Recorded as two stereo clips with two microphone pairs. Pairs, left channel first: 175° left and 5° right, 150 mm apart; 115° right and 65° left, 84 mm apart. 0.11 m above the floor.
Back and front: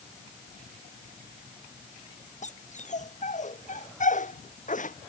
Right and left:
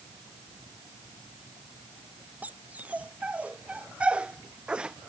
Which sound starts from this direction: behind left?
A dog barking, at 2.4 s.